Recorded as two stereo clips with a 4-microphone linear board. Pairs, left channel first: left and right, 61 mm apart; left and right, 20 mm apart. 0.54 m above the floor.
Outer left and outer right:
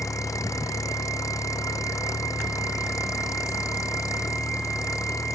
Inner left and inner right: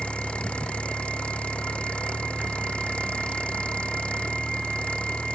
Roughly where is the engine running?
Left.